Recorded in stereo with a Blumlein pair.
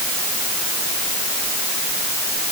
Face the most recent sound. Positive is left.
No sound to turn to.